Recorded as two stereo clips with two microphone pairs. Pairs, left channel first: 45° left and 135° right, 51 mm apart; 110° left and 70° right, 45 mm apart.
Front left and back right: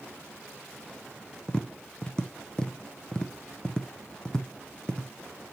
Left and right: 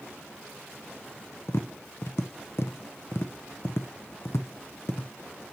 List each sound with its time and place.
1.5 s tapping: 120° left, 0.6 m